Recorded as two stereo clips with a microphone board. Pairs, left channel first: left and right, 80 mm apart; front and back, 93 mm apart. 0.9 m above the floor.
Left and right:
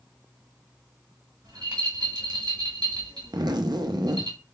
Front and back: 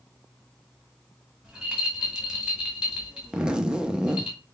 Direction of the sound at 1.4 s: 95° right.